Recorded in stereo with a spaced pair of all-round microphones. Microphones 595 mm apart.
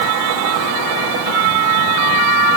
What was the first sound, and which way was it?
Only background noise.